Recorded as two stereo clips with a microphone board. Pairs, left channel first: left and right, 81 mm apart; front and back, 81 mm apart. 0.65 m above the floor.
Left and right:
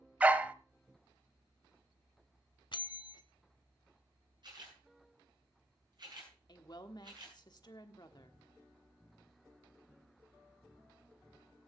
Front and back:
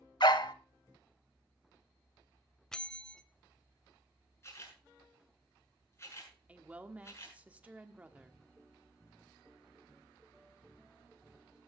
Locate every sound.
0.2 s a dog barking: 20° right, 0.8 m
2.7 s a bell: 80° left, 0.6 m
4.4 s a camera shutter: 60° right, 7.5 m
6.5 s a woman speaking: 110° left, 1.3 m